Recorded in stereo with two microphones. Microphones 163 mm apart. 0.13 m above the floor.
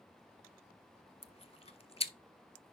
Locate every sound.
1.2 s chewing: 40° left (ahead or behind), 0.5 m